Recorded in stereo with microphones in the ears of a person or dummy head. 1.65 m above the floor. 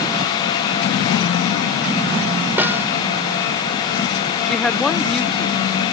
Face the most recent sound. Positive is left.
turn(degrees=0)  # may be behind; listen again after turning